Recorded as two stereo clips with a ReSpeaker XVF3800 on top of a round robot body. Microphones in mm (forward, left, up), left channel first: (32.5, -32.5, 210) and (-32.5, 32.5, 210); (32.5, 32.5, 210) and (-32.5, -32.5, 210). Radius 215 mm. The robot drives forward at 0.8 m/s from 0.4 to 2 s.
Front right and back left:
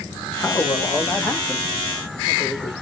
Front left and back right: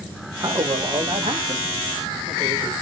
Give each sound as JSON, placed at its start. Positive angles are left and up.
{"t": 0.4, "sound": "a man speaking", "azimuth_deg": -100, "distance_m": 2.0}